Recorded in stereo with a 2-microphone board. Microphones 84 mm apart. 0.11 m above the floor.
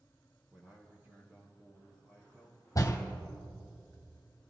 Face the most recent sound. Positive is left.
turn(degrees=40)  # may be behind; listen again after turning